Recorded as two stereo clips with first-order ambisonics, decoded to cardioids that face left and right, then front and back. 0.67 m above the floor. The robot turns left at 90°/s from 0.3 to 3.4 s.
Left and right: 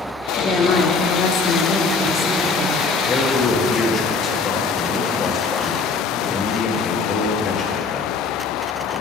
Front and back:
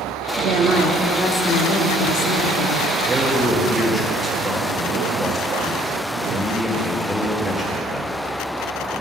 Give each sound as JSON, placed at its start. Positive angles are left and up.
{"t": 0.4, "sound": "a woman speaking", "azimuth_deg": 160, "distance_m": 0.9}
{"t": 3.1, "sound": "a man speaking", "azimuth_deg": 120, "distance_m": 0.8}